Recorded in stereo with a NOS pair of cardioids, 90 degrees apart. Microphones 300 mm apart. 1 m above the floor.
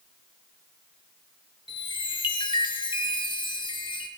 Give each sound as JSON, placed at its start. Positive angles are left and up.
{"t": 1.7, "sound": "a chime", "azimuth_deg": 15, "distance_m": 1.8}